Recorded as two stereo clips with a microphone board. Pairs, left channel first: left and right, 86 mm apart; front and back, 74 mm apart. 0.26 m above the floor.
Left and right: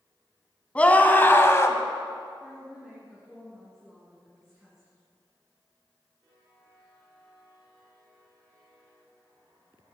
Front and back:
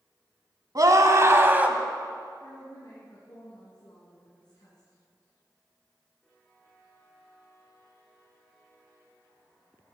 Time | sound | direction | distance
0.8 | a scream | 160° left | 1.6 m
2.4 | a woman speaking | 10° right | 2.5 m